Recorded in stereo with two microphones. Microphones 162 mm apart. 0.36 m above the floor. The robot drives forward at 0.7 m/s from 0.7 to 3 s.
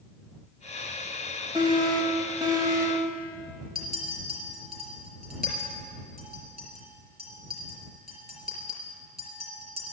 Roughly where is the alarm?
Right.